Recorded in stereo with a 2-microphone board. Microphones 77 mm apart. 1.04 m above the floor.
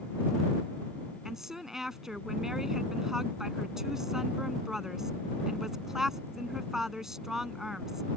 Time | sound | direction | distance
1.2 | a woman speaking | 5° right (ahead or behind) | ?